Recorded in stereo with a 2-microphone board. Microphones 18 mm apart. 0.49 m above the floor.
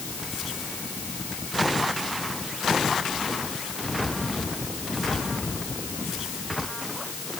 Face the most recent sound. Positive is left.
No sound to turn to.